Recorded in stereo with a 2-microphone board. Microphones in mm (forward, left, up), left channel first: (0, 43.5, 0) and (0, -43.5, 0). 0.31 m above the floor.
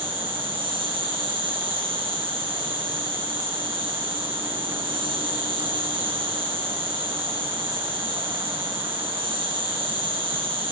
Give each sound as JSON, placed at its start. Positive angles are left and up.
{"t": 0.0, "sound": "an insect", "side_deg": -85, "distance_m": 1.8}